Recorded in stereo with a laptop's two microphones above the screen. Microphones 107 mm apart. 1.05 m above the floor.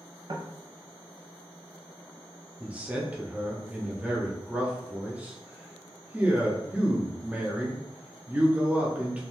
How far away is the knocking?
About 0.7 m.